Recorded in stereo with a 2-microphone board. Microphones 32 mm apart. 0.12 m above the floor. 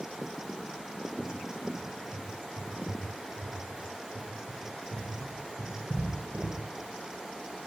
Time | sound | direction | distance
1.2 | a cupboard door | 50° right (ahead or behind) | 8.5 m